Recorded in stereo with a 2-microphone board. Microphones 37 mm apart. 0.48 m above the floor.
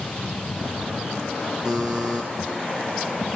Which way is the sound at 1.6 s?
15° right (ahead or behind).